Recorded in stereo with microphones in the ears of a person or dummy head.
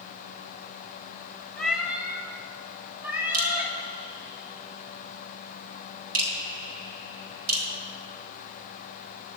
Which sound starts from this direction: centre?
A cat meowing, at 1.6 s.